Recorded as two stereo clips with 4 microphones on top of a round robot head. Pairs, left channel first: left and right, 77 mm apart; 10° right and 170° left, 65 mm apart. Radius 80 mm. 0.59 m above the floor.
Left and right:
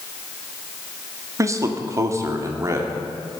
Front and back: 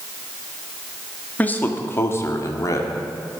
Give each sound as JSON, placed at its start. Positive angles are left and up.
{"t": 1.4, "sound": "a man speaking", "azimuth_deg": -65, "distance_m": 1.4}